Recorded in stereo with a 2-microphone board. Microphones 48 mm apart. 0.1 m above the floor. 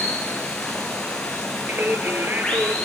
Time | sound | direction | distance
0.0 | running water | 15° left (ahead or behind) | 3.5 m
1.7 | singing | 40° right (ahead or behind) | 2 m